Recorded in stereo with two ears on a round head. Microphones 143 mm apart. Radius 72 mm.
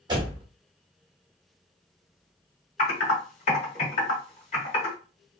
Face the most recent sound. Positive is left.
turn(degrees=45)  # may be behind; listen again after turning